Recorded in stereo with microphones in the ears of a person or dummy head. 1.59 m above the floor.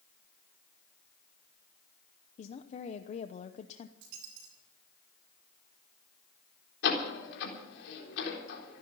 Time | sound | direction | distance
2.4 | a woman speaking | 45° left (ahead or behind) | 0.8 m
4.0 | a dropped coin | 70° right (ahead or behind) | 3 m
6.8 | a door slam | 75° left (ahead or behind) | 3.5 m